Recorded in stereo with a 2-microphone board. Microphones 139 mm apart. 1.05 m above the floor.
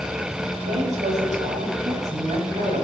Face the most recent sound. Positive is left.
turn(degrees=-55)  # may be behind; listen again after turning